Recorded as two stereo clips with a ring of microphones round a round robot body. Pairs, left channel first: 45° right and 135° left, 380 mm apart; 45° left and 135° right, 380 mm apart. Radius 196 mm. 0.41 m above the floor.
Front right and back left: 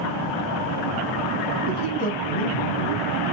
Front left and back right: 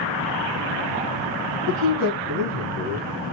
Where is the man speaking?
20° right, 3.5 m; by 3.1 s 25° right, 2.5 m.